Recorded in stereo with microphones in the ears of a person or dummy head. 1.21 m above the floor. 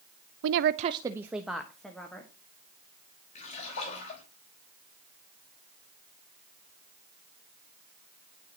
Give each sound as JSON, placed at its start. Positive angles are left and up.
{"t": 0.4, "sound": "a woman speaking", "side_deg": -80, "distance_m": 0.5}
{"t": 3.4, "sound": "a splash", "side_deg": 35, "distance_m": 3.0}